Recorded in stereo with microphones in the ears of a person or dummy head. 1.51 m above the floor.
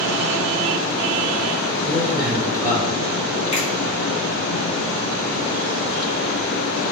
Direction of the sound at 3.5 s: 40° left (ahead or behind).